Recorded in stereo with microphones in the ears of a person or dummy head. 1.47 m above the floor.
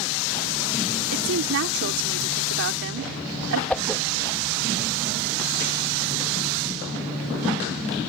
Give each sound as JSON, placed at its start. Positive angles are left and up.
{"t": 1.1, "sound": "a woman speaking", "side_deg": -70}
{"t": 3.7, "sound": "a whoosh", "side_deg": 5}